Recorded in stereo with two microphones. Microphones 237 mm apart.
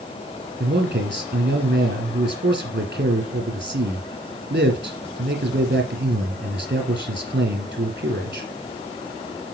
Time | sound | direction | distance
0.6 | a man speaking | 55° right (ahead or behind) | 3 m